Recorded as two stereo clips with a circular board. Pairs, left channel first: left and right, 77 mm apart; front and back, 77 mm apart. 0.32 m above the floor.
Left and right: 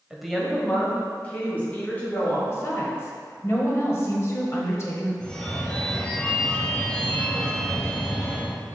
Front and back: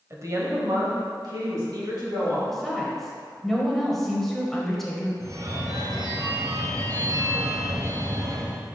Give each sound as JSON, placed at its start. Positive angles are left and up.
{"t": 0.1, "sound": "a woman speaking", "azimuth_deg": -165, "distance_m": 1.1}
{"t": 2.5, "sound": "a woman speaking", "azimuth_deg": 85, "distance_m": 1.3}
{"t": 5.2, "sound": "a phone ringing", "azimuth_deg": 160, "distance_m": 0.7}